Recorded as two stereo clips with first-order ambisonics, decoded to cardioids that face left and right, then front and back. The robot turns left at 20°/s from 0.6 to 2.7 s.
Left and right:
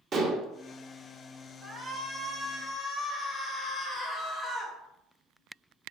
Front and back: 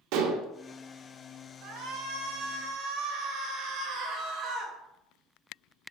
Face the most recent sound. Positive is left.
turn(degrees=165)